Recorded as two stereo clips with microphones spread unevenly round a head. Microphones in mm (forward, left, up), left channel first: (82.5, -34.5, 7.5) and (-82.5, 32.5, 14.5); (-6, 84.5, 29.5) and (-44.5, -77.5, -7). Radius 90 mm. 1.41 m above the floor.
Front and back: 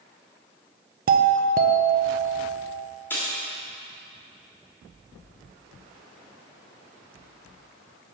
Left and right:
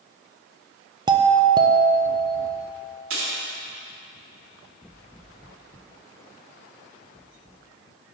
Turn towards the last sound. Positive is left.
turn(degrees=-105)